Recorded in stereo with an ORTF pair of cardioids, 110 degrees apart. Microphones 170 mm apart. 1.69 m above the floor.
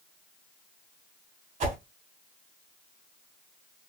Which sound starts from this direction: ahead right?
A whoosh, at 1.6 s.